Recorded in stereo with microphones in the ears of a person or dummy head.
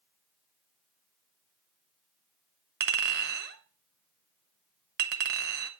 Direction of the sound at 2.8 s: 65° right (ahead or behind).